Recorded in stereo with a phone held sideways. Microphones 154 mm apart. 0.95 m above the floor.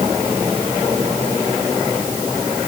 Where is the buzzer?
I don't hear a buzzer.